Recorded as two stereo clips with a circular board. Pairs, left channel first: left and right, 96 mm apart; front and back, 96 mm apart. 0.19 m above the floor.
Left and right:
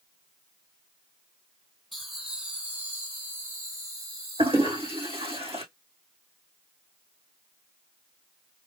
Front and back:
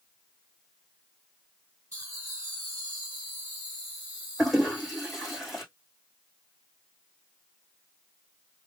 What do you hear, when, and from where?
1.9 s laughter: 175° right, 1.7 m; by 5.4 s 105° right, 3 m
4.4 s a toilet flushing: 90° right, 3 m